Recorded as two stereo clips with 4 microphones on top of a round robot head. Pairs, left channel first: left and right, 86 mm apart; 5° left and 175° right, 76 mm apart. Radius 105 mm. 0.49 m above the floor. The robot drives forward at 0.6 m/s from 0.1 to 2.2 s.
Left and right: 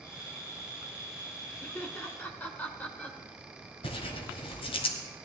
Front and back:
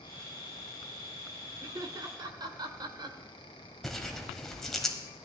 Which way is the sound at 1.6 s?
155° left.